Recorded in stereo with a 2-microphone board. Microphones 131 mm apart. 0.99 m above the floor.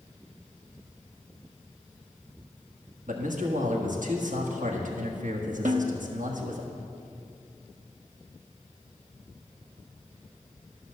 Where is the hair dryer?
No hair dryer in this recording.